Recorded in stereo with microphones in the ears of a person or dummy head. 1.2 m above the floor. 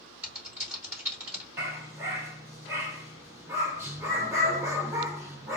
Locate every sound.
0.2 s typing on a keyboard: 10° right (ahead or behind), 2 m
1.6 s a dog barking: 15° right (ahead or behind), 1.3 m